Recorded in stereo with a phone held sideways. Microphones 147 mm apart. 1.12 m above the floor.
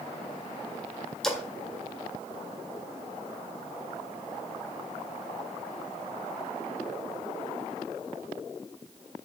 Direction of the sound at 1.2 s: 5° left (ahead or behind).